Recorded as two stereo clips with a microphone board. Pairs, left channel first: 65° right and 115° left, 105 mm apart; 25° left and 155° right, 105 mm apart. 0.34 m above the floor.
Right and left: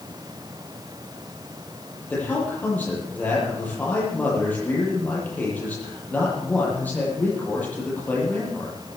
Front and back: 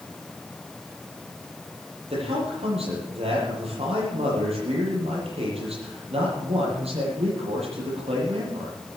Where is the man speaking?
140° right, 10 m.